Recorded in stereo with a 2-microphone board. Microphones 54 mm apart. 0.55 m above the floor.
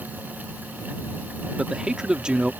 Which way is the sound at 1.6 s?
15° right (ahead or behind).